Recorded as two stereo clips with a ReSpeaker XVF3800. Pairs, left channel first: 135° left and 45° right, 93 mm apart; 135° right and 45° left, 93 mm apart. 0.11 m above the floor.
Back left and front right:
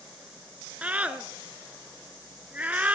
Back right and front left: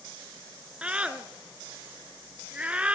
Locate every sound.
0.8 s a scream: 5° right, 1.1 m